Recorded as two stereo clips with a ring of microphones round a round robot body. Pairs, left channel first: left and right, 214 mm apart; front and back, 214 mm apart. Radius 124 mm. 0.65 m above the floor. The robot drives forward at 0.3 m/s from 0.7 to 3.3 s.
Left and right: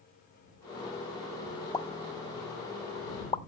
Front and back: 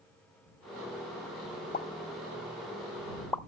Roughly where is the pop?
Ahead left.